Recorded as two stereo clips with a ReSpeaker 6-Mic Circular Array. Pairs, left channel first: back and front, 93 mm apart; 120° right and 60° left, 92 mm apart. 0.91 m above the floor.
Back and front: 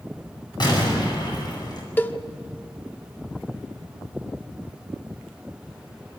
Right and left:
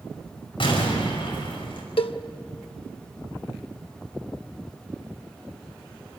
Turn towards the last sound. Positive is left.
turn(degrees=-110)